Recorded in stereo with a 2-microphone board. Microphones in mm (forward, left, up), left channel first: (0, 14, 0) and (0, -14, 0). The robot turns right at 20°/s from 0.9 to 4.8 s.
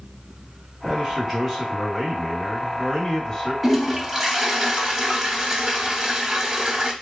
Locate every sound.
0.8 s a man speaking: 25° right, 1.9 m; by 3.5 s 30° left, 1.9 m
3.6 s a toilet flushing: centre (ahead or behind), 0.7 m; by 6.9 s 15° right (ahead or behind), 0.7 m